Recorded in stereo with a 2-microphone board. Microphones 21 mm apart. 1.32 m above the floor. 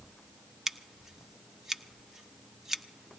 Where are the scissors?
25° right (ahead or behind), 0.9 m.